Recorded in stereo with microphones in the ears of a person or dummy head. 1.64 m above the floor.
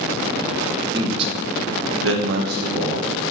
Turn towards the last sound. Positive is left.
turn(degrees=-40)  # may be behind; listen again after turning